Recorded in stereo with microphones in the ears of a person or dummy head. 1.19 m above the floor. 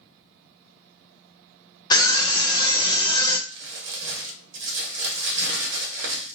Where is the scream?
20° left (ahead or behind), 0.7 m.